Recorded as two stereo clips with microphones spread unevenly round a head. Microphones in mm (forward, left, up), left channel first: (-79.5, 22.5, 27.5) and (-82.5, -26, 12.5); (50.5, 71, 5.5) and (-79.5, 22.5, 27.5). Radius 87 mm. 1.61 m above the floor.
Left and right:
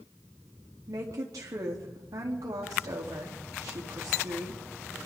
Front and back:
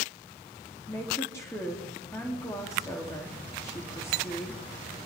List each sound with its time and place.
0.9 s a woman speaking: 60° right, 3.5 m